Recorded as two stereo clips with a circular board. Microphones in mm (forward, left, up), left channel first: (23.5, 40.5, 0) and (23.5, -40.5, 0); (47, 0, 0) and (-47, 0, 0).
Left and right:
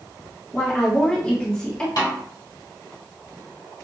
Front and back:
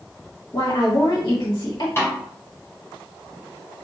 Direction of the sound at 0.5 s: 15° left.